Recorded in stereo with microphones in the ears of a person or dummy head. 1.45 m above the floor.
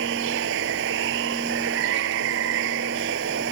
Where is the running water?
70° right (ahead or behind).